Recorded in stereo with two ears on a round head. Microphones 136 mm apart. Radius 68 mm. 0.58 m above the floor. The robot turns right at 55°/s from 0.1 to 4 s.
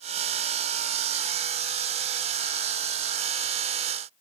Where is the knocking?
I don't hear knocking.